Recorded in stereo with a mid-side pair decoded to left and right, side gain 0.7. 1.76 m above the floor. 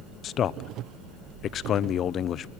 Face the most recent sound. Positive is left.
turn(degrees=40)